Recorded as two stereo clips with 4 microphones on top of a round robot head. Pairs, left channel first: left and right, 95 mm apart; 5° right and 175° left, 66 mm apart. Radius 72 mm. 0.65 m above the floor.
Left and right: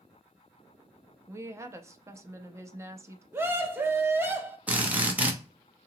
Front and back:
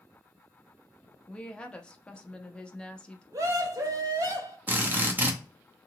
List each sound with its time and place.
1.3 s a woman speaking: 65° right, 0.6 m
3.3 s a scream: 155° right, 1.0 m
4.7 s a drill: 150° right, 0.9 m